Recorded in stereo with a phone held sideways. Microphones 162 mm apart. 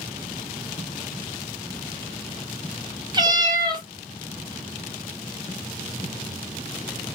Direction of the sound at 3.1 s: 30° right (ahead or behind).